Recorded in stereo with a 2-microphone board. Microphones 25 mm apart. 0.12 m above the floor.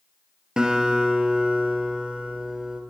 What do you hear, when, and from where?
0.6 s a guitar: 30° right (ahead or behind), 2.5 m